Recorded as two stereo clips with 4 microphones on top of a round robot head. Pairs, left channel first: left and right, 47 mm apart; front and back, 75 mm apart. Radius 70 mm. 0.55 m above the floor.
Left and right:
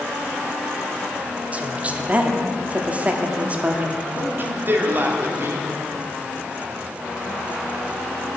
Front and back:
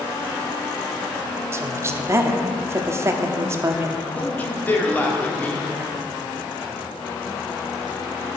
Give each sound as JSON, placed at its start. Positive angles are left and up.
{"t": 1.5, "sound": "a woman speaking", "azimuth_deg": -140, "distance_m": 0.9}
{"t": 4.2, "sound": "a man speaking", "azimuth_deg": -65, "distance_m": 1.5}